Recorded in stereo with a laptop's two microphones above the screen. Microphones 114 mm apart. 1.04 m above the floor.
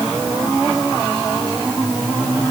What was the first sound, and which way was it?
Only background noise.